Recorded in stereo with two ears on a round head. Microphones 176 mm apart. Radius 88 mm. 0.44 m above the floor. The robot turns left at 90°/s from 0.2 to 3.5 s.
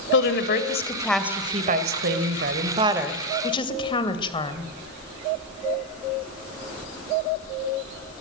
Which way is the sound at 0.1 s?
90° left.